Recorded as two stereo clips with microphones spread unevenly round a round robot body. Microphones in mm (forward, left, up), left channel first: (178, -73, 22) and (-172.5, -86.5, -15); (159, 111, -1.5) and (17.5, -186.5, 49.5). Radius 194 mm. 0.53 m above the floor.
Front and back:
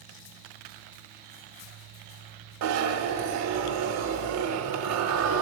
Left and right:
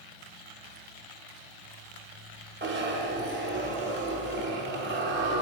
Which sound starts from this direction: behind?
A zipper, at 2.6 s.